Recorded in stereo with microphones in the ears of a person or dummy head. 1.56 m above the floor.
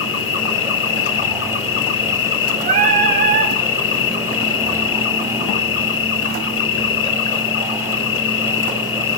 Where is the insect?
65° left (ahead or behind), 1.8 m.